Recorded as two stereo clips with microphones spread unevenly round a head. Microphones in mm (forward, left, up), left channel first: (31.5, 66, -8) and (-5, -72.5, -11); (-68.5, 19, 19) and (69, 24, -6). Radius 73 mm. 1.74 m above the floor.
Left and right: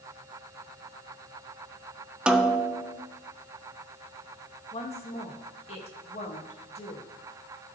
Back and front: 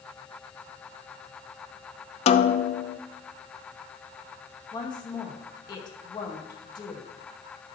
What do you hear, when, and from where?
2.3 s a snare drum: 175° left, 0.6 m
4.7 s a woman speaking: 125° left, 2 m